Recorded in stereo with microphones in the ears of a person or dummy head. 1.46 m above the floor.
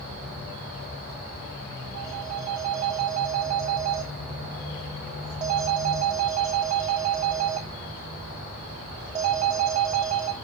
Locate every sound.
1.9 s a phone ringing: 25° right (ahead or behind), 1.1 m